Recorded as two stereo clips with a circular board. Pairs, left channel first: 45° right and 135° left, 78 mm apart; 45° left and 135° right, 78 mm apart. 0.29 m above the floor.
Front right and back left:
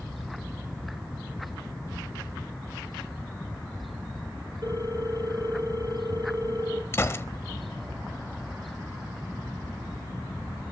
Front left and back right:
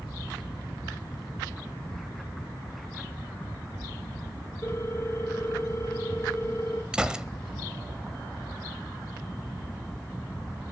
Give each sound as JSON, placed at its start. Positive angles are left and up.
{"t": 4.6, "sound": "a ringtone", "azimuth_deg": 100, "distance_m": 3.0}
{"t": 6.9, "sound": "a gunshot", "azimuth_deg": -65, "distance_m": 0.9}